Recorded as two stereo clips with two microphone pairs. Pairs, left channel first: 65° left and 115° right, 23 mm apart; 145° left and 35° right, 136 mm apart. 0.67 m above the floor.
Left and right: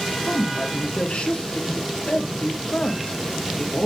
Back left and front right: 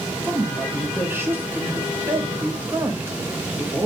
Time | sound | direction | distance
0.2 | a woman speaking | 35° left | 2.5 m